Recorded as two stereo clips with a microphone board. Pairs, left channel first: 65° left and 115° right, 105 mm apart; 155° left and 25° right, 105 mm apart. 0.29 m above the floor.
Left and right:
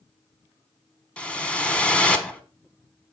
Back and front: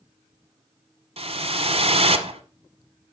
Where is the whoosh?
10° right, 0.8 m.